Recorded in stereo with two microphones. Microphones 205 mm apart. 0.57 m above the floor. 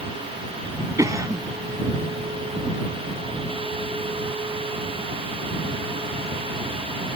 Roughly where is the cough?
Centre.